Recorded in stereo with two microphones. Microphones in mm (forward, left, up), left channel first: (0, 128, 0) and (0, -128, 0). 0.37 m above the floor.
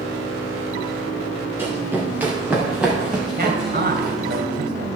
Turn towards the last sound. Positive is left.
turn(degrees=-40)  # may be behind; listen again after turning